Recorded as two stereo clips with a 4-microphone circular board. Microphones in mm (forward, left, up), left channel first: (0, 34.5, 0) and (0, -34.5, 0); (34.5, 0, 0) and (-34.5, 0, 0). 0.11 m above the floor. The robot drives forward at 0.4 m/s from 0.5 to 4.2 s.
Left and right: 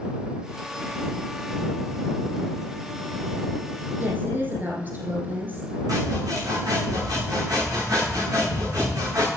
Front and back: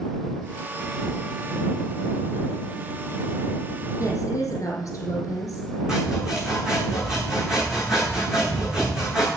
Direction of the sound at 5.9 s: 100° right.